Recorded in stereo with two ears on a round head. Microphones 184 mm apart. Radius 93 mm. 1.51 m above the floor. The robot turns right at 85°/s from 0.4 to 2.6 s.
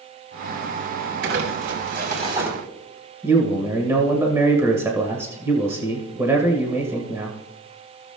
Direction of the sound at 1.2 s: 115° right.